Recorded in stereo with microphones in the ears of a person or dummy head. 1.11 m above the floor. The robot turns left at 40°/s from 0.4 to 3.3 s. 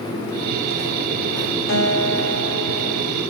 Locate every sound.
1.7 s a guitar: 105° left, 1.0 m; by 3.0 s 50° left, 1.0 m